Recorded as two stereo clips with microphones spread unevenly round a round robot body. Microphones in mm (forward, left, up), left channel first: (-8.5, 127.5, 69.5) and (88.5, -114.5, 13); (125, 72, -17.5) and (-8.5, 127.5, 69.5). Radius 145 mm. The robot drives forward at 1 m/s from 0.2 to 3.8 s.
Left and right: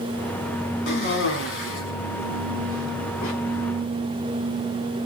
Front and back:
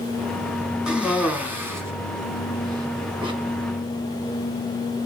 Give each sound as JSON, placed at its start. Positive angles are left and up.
{"t": 0.9, "sound": "a cough", "azimuth_deg": 65, "distance_m": 5.0}